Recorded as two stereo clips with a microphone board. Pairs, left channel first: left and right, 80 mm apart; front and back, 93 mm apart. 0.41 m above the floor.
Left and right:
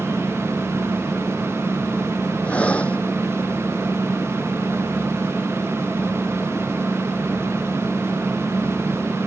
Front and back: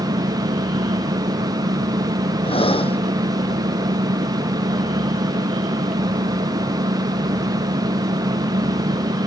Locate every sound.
0.0 s an engine running: 175° left
2.4 s breathing: 15° left